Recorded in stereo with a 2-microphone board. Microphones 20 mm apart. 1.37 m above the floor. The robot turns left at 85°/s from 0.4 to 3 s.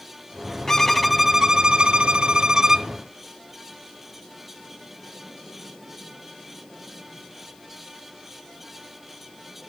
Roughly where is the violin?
Ahead left.